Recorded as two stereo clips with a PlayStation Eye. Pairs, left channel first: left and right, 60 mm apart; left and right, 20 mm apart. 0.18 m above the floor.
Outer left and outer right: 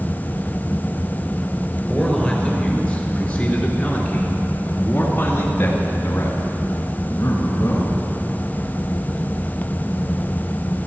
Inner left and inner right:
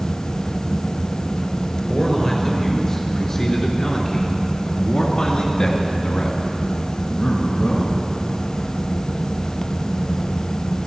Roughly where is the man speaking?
Centre.